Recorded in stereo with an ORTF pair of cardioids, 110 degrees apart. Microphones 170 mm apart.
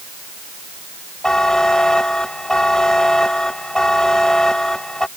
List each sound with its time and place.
1.2 s a buzzer: 5° left